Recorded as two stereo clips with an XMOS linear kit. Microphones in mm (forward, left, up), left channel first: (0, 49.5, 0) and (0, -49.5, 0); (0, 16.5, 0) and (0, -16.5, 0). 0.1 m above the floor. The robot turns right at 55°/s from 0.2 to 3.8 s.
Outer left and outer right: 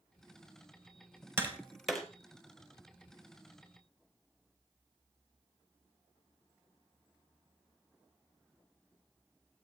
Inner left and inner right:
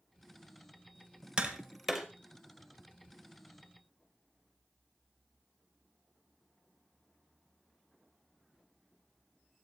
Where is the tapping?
25° right (ahead or behind), 2 m; by 2.1 s 5° left (ahead or behind), 2 m.